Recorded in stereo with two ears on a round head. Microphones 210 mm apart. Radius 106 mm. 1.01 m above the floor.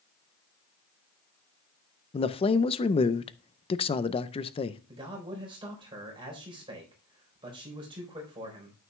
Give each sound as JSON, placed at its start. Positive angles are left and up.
{"t": 2.1, "sound": "a man speaking", "side_deg": 25, "distance_m": 0.5}
{"t": 4.9, "sound": "a man speaking", "side_deg": -20, "distance_m": 3.5}